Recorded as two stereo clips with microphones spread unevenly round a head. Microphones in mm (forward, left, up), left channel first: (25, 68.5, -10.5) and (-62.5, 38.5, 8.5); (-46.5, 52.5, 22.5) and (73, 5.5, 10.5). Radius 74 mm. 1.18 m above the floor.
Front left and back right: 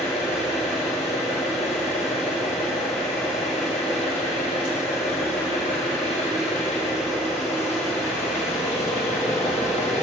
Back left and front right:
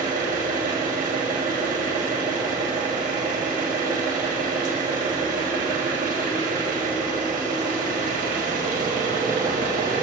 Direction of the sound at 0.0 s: 5° right.